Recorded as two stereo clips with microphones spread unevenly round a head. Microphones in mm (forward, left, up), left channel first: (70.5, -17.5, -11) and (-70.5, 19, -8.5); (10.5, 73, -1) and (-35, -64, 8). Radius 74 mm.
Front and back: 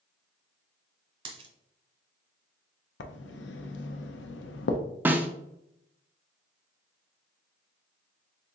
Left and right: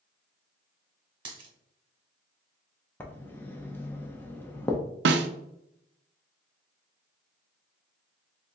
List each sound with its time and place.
1.2 s a dropped coin: 155° right, 1.1 m
3.0 s writing: 5° right, 0.6 m
5.0 s a snare drum: 115° right, 0.5 m